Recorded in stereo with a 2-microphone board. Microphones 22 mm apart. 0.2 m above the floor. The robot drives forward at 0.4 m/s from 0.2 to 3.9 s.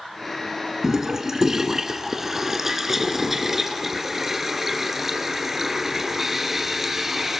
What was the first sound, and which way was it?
A toilet flushing, 20° right (ahead or behind).